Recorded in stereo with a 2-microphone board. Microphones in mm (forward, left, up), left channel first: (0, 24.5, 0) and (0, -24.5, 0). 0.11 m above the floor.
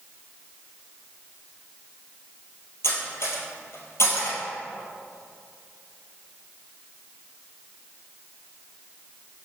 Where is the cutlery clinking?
65° left (ahead or behind), 1.6 m.